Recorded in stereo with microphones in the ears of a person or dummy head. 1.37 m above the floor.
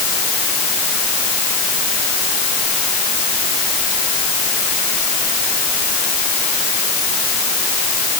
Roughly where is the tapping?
No tapping in this recording.